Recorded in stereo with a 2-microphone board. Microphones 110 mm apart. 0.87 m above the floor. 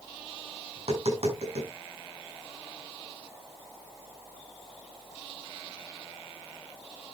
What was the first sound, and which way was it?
Tapping, 70° right (ahead or behind).